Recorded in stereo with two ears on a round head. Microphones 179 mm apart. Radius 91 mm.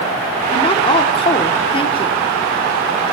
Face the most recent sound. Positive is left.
turn(degrees=25)  # may be behind; listen again after turning